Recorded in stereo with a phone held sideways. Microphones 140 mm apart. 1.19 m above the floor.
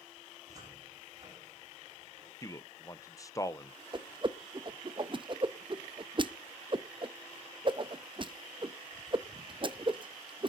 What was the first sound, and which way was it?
A cupboard door, 30° right (ahead or behind).